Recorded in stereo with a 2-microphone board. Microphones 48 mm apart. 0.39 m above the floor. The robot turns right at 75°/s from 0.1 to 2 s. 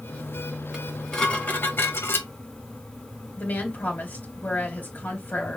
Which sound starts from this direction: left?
A woman speaking, at 3.4 s.